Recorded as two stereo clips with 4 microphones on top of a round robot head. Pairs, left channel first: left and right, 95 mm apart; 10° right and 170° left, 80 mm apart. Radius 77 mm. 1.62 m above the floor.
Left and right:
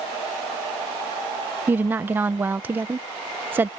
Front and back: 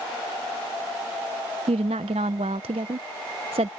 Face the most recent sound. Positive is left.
turn(degrees=-160)